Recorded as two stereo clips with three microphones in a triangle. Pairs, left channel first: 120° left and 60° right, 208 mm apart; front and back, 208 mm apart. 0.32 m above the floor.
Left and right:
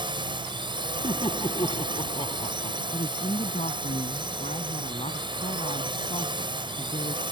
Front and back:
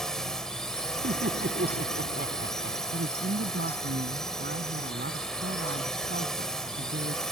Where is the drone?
85° right.